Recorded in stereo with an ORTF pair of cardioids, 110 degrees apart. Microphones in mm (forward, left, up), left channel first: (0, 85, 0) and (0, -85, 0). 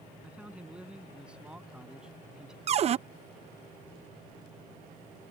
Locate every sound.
0.2 s a man speaking: 5° right
2.7 s a cupboard door: 40° right